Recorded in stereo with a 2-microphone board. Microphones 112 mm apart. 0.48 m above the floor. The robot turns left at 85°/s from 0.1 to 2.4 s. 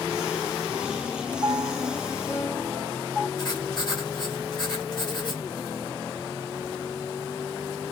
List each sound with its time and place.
1.4 s a piano: 145° right, 1.1 m; by 3.3 s 135° left, 1.1 m
3.4 s writing: 40° left (ahead or behind), 1.8 m